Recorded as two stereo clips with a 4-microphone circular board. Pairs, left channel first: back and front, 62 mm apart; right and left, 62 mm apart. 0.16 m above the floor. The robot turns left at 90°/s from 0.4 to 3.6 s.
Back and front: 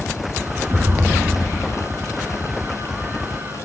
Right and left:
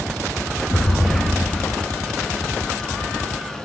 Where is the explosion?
45° right, 1.0 m; by 1.8 s 145° right, 1.0 m.